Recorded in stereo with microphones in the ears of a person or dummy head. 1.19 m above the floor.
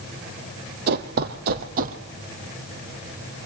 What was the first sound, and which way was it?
Running footsteps, 50° right (ahead or behind).